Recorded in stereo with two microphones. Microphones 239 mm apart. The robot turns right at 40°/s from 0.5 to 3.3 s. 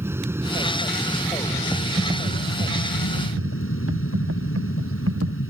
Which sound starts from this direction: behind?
Typing on a keyboard, at 1.7 s.